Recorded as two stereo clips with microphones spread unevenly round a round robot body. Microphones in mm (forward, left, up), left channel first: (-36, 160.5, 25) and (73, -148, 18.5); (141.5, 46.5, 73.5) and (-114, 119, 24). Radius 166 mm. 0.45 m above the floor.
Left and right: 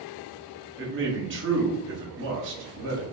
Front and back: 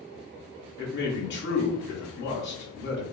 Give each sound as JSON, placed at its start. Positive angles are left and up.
{"t": 0.8, "sound": "a man speaking", "azimuth_deg": -55, "distance_m": 0.9}